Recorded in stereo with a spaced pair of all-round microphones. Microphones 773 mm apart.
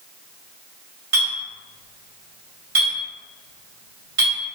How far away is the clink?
About 1.5 m.